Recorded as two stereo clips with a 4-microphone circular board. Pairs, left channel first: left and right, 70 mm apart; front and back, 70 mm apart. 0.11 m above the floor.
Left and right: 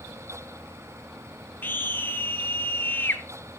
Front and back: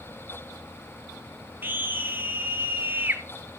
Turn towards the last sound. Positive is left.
turn(degrees=135)